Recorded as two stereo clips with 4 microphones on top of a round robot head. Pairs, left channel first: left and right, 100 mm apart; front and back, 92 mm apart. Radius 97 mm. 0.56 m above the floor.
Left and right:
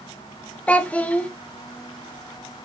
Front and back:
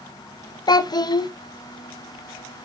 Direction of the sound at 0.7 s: 20° left.